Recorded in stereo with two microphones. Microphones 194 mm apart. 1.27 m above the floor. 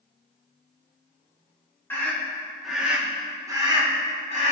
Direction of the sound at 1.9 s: 10° left (ahead or behind).